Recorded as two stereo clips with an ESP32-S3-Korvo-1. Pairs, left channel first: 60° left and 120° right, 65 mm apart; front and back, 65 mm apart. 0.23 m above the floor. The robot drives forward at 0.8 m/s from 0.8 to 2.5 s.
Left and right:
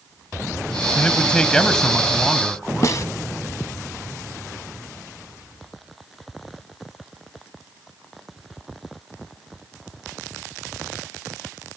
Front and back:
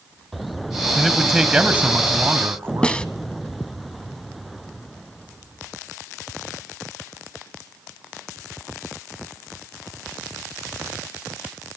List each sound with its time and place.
0.9 s a man speaking: 90° left, 1.7 m; by 3.0 s 155° left, 2 m
2.8 s a snare drum: 70° left, 0.8 m